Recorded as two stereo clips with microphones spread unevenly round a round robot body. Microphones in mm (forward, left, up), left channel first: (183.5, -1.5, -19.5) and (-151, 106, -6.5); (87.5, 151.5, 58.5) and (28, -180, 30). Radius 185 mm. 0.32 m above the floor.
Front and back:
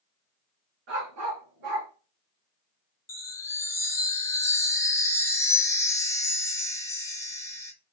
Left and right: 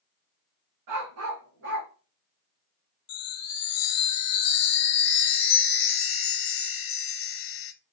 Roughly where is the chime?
Ahead left.